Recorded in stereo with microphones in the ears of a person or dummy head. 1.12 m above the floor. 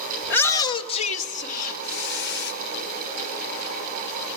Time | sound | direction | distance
0.2 | a shout | 5° left (ahead or behind) | 1.1 m